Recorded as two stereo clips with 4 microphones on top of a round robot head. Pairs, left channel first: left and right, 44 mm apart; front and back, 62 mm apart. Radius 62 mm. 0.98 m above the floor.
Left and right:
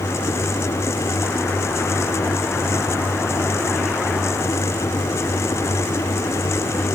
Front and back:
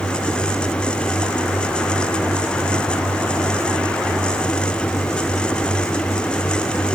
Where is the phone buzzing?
I don't hear a phone buzzing.